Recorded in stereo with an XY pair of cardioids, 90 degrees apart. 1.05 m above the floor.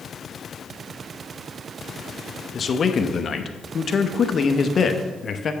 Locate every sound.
2.5 s a man speaking: 50° left, 0.9 m